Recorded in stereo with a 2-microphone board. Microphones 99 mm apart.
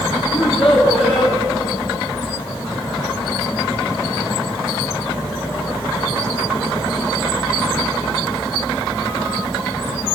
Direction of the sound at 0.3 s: 75° left (ahead or behind).